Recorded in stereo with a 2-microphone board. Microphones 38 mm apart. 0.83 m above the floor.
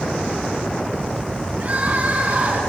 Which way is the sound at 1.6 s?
40° right (ahead or behind).